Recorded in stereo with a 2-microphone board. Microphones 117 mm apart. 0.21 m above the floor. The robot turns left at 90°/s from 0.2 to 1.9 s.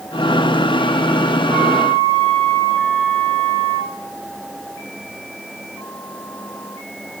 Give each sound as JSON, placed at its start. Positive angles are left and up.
{"t": 1.5, "sound": "a flute", "azimuth_deg": -55, "distance_m": 5.5}